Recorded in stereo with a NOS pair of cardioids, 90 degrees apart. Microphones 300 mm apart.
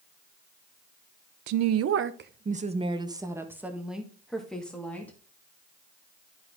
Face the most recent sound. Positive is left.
turn(degrees=5)